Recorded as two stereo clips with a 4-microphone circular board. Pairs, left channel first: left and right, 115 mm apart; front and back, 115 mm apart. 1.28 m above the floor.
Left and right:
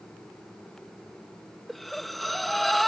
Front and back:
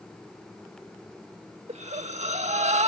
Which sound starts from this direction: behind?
Breathing, at 1.7 s.